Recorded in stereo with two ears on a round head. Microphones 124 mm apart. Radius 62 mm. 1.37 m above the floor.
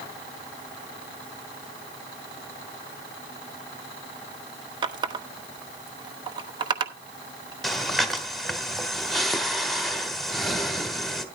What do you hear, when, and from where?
4.8 s a running tap: 35° right (ahead or behind), 1.1 m
7.6 s breathing: centre (ahead or behind), 1.4 m